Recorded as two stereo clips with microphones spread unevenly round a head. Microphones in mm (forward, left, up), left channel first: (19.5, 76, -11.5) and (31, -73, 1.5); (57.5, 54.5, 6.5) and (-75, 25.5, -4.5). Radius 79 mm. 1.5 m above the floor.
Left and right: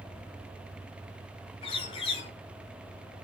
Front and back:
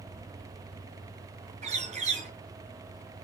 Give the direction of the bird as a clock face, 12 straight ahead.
7 o'clock.